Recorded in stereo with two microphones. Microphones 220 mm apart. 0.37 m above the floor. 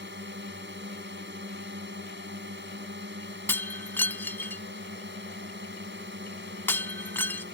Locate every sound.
0.0 s a drone: 60° right (ahead or behind)
3.5 s breaking glass: 10° left (ahead or behind)